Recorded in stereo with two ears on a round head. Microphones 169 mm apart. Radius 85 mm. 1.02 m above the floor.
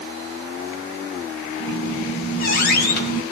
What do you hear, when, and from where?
1.6 s a squeak: 50° left (ahead or behind), 3 m